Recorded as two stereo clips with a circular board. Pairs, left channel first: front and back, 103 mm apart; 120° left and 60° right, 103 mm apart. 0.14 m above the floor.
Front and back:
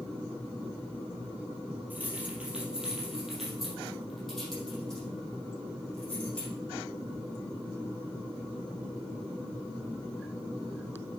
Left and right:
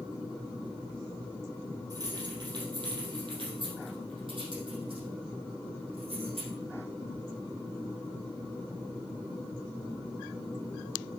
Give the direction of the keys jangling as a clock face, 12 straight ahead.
4 o'clock.